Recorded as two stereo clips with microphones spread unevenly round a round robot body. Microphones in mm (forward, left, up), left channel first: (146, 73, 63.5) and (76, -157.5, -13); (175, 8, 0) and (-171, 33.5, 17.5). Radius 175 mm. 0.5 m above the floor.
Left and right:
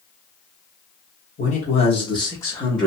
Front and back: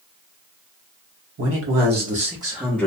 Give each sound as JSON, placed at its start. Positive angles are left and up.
{"t": 1.4, "sound": "a man speaking", "azimuth_deg": 145, "distance_m": 1.0}